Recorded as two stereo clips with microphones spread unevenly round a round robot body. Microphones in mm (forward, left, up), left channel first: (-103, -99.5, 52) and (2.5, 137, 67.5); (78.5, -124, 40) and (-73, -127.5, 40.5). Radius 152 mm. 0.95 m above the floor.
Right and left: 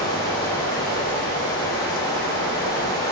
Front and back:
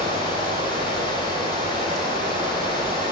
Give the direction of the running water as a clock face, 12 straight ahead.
6 o'clock.